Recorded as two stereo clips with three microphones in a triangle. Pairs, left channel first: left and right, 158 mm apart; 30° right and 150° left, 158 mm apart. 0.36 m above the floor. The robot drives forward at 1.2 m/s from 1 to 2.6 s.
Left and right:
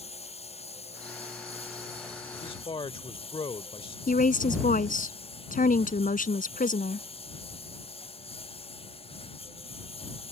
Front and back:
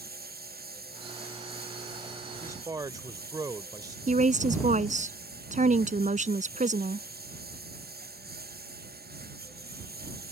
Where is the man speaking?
85° left; by 4.0 s 105° left.